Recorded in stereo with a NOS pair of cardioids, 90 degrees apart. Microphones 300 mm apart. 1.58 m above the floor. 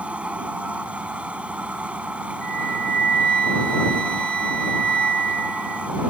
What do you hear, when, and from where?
0.0 s a machine running: 5° right
2.4 s a flute: 35° right